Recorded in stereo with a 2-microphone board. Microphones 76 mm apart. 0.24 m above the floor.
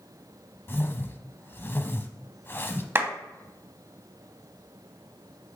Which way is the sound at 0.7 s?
30° left (ahead or behind).